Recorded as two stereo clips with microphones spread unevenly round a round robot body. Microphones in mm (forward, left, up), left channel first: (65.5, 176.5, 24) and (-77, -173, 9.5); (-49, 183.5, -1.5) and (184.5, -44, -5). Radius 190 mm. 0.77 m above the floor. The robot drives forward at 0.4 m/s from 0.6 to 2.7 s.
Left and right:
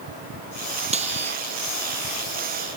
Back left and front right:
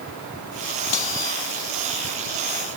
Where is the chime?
I don't hear a chime.